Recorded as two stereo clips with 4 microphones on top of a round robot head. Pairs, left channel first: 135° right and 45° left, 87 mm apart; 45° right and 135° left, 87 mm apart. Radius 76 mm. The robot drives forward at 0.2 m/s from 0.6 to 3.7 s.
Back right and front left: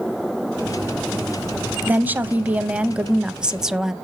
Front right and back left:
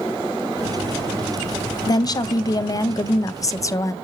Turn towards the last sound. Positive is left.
turn(degrees=-35)